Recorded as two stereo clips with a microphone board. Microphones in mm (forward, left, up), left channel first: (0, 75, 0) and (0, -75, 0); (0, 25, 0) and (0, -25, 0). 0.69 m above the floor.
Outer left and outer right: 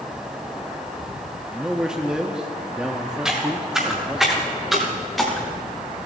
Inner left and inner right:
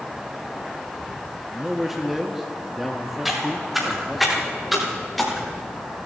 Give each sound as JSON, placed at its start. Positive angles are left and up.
{"t": 1.5, "sound": "a man speaking", "side_deg": -5, "distance_m": 0.7}
{"t": 3.2, "sound": "footsteps", "side_deg": -5, "distance_m": 6.0}